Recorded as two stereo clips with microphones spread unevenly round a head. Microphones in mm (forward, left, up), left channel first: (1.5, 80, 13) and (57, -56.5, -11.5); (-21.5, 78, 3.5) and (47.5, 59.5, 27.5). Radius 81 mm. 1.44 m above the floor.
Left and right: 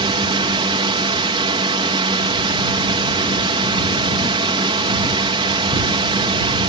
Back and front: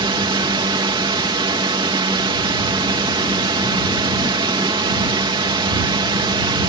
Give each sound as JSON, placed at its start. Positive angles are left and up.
{"t": 0.0, "sound": "a drone", "azimuth_deg": -15}